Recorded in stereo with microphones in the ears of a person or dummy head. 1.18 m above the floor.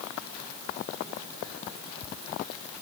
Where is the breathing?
I don't hear breathing.